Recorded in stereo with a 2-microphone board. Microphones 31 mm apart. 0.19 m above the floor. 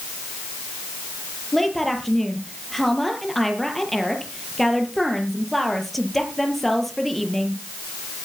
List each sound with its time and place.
1.5 s a woman speaking: 5° left (ahead or behind), 5.5 m